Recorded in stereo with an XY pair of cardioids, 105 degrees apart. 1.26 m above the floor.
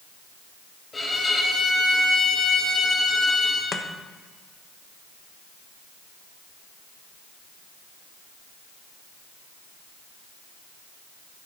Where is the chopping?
40° left, 1.1 m.